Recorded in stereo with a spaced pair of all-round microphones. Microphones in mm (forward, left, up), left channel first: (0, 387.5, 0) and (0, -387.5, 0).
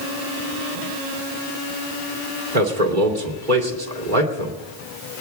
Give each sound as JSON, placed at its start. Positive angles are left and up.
{"t": 2.5, "sound": "a man speaking", "side_deg": -80, "distance_m": 2.5}